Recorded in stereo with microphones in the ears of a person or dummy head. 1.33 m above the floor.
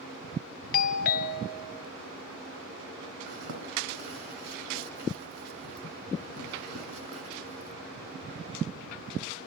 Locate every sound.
0.7 s a doorbell: 40° left (ahead or behind), 0.7 m
3.3 s a zipper: 45° right (ahead or behind), 2.5 m